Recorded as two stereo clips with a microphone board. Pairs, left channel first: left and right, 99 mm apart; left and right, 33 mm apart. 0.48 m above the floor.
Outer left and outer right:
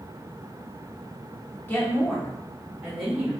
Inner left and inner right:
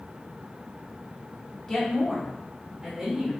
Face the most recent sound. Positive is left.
turn(degrees=-5)  # may be behind; listen again after turning